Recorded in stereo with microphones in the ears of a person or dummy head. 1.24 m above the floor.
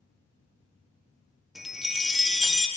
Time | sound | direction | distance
1.6 | a chime | 5° left (ahead or behind) | 0.6 m